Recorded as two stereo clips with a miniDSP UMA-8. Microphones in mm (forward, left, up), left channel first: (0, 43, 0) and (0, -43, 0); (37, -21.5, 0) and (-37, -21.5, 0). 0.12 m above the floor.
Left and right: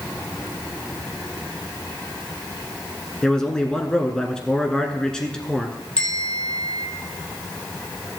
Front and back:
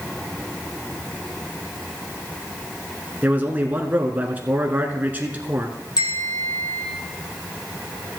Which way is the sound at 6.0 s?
15° left.